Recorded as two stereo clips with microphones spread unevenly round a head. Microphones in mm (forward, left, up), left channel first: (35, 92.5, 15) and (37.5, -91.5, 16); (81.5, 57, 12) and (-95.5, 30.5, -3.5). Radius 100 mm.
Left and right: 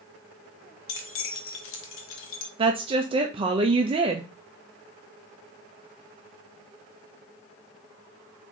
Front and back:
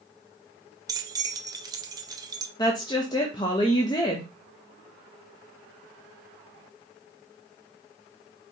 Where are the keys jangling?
120° left, 0.8 m.